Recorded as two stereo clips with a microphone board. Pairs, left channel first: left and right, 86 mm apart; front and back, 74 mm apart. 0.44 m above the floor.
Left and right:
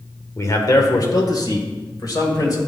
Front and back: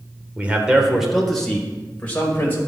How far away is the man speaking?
About 1.3 m.